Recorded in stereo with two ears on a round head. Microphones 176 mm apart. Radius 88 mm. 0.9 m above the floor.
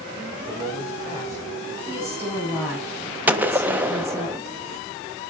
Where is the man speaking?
15° right (ahead or behind), 3 m.